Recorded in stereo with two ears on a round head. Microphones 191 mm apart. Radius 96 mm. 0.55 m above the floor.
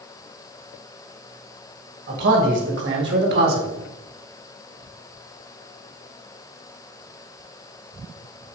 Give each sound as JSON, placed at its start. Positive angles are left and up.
{"t": 2.1, "sound": "a man speaking", "side_deg": -55, "distance_m": 3.0}